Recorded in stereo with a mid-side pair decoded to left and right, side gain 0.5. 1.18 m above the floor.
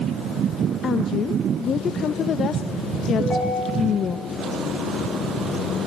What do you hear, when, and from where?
0.8 s a woman speaking: 50° left, 0.8 m
3.2 s a ringtone: 35° left, 5.5 m